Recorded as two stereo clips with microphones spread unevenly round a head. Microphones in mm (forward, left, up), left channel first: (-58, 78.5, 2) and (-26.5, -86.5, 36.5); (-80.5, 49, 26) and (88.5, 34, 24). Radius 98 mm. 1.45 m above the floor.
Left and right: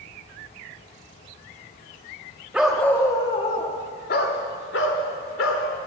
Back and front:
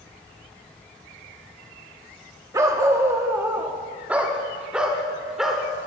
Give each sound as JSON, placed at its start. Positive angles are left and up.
{"t": 2.5, "sound": "a dog barking", "azimuth_deg": -45, "distance_m": 0.9}